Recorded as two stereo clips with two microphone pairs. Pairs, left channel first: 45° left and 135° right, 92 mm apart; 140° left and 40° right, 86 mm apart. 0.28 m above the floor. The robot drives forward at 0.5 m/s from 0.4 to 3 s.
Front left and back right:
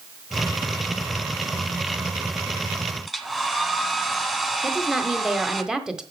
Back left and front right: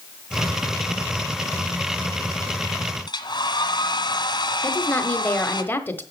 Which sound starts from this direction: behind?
A woman speaking, at 4.6 s.